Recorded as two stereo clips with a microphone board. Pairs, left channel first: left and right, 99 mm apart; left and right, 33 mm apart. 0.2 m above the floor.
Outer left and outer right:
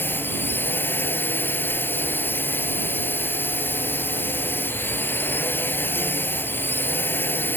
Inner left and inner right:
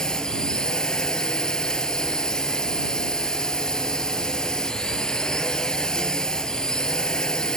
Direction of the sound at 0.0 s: 20° left (ahead or behind).